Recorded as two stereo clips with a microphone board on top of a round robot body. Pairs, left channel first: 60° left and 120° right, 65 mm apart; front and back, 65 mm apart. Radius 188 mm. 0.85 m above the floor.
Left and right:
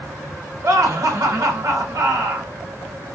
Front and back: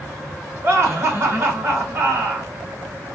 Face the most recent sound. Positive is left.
turn(degrees=-130)